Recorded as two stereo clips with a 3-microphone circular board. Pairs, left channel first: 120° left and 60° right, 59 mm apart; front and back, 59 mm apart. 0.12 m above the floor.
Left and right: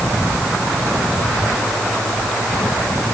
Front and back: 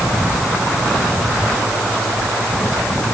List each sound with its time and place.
Only background noise.